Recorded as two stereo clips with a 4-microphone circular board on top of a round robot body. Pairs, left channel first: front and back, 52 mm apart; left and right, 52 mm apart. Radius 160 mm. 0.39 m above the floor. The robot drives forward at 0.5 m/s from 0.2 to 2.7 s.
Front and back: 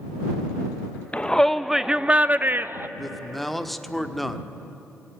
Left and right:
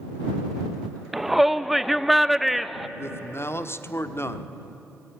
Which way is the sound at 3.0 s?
85° left.